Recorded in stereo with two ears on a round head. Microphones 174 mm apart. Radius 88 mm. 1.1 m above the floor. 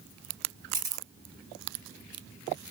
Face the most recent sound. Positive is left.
turn(degrees=-20)  # may be behind; listen again after turning